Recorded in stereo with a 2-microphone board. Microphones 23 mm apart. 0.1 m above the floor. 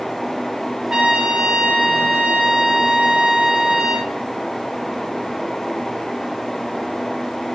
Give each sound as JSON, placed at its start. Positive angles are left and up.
{"t": 0.9, "sound": "a trumpet", "side_deg": -30, "distance_m": 3.0}